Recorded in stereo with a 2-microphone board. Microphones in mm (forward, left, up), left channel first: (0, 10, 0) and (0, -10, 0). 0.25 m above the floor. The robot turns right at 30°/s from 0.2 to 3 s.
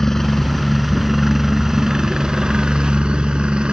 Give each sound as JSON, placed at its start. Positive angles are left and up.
{"t": 0.0, "sound": "a helicopter", "azimuth_deg": 160}